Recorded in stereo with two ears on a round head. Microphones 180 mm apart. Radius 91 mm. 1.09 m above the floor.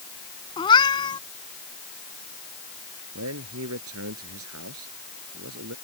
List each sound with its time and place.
0.6 s a cat meowing: 25° left (ahead or behind)
3.1 s a man speaking: 80° right